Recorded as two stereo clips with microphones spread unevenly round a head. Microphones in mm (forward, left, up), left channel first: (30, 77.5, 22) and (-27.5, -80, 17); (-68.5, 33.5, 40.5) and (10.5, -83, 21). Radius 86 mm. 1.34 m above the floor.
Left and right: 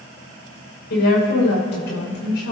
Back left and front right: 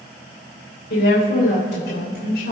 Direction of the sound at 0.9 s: 100° left.